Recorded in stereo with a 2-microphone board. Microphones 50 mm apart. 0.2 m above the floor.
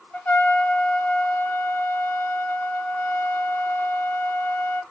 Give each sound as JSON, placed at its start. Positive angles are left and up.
{"t": 0.1, "sound": "a trumpet", "side_deg": 40, "distance_m": 0.9}